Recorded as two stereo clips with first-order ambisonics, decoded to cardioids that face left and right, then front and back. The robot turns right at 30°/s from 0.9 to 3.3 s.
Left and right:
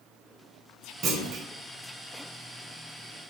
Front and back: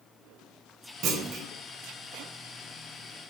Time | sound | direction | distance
1.0 | a clunk | 140° right | 0.5 m